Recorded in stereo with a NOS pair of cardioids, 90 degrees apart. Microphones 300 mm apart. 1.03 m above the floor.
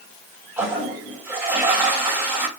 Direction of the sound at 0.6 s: 10° right.